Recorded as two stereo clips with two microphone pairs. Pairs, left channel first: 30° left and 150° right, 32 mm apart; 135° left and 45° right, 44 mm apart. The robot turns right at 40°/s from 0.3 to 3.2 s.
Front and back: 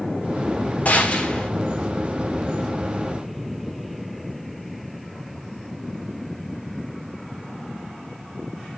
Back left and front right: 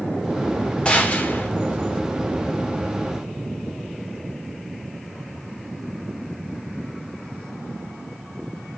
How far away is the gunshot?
About 1.6 m.